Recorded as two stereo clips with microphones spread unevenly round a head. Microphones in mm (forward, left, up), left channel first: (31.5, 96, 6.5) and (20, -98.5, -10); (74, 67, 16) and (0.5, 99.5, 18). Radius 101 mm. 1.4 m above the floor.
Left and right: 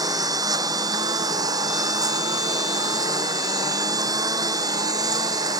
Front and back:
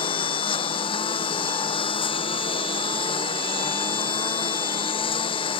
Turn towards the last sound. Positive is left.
turn(degrees=-20)